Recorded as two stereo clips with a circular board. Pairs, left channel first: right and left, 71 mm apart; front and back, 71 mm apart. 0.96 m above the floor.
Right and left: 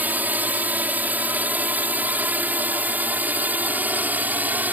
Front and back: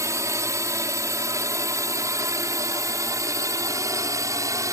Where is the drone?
150° left; by 4.7 s 155° left.